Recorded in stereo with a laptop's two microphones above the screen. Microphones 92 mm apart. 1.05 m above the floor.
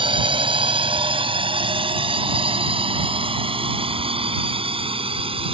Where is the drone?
65° right (ahead or behind); by 5.5 s 80° right.